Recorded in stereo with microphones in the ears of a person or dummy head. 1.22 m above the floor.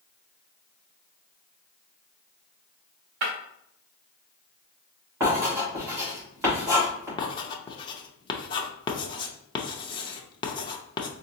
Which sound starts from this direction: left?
Writing, at 7.2 s.